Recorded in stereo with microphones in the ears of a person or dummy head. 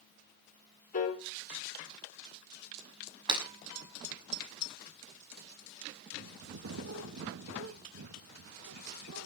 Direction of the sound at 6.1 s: 75° right (ahead or behind).